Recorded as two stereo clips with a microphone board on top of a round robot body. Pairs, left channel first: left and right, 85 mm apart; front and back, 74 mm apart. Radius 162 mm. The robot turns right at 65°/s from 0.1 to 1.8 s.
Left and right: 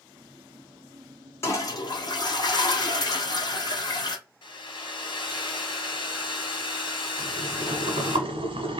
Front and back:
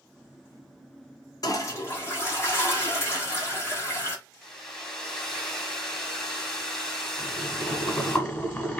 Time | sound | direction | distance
1.4 | a toilet flushing | 30° left | 1.6 m
4.4 | a hair dryer | 85° left | 2 m
7.2 | boiling | 70° right | 1.2 m